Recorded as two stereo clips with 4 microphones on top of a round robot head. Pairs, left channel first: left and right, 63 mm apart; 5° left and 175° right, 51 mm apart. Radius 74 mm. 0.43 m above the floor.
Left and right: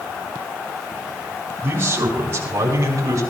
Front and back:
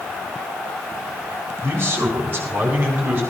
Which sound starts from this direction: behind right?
A man speaking, at 1.6 s.